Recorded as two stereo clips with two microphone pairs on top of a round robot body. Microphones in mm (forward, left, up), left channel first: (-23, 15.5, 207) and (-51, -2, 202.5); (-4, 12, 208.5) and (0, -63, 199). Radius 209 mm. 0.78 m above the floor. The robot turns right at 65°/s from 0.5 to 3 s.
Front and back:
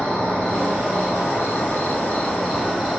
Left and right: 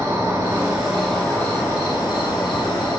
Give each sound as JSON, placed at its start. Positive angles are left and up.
{"t": 0.0, "sound": "an insect", "azimuth_deg": -30, "distance_m": 2.0}